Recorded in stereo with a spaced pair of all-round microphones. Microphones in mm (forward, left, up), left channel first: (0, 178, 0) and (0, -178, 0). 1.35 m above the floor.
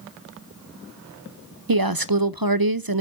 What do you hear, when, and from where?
1.7 s a woman speaking: 75° right (ahead or behind), 0.5 m